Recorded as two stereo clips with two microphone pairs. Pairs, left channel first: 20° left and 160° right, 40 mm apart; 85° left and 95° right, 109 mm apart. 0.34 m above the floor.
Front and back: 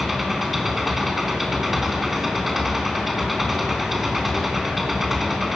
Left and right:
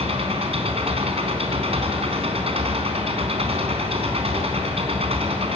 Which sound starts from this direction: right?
An engine running, at 0.0 s.